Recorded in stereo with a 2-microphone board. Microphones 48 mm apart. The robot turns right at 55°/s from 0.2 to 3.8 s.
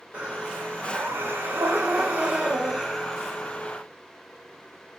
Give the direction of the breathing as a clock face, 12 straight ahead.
5 o'clock.